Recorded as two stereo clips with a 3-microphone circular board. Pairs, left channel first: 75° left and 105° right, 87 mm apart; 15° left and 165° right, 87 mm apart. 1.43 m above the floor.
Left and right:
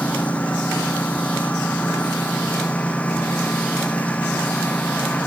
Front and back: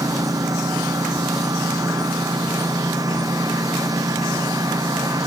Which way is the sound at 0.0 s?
150° left.